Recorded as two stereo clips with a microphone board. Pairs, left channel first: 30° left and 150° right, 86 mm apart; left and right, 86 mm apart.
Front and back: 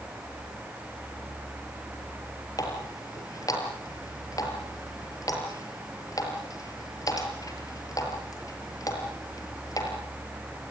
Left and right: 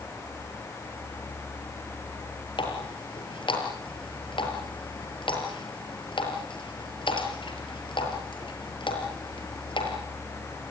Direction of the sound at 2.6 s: 75° left.